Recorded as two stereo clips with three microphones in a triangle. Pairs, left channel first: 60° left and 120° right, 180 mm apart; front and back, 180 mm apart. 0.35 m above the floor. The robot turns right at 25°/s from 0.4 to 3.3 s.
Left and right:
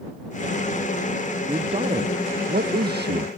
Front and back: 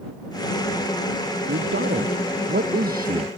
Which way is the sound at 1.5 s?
Straight behind.